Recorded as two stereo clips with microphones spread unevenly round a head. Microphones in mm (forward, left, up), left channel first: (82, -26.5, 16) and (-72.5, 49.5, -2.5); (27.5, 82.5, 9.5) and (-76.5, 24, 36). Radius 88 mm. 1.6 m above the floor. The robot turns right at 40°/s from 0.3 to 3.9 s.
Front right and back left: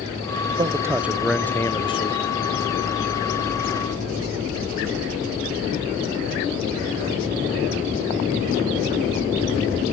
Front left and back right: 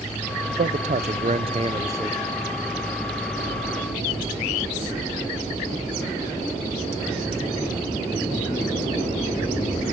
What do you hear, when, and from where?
0.5 s a man speaking: 145° right, 0.5 m; by 2.2 s 75° right, 0.5 m